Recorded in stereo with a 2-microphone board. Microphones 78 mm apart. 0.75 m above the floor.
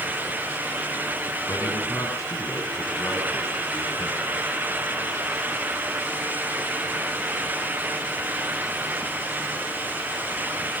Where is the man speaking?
45° left (ahead or behind), 8.5 m; by 4.2 s 50° left (ahead or behind), 6.5 m.